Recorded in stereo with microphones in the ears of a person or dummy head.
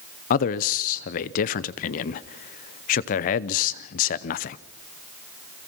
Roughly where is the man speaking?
Left.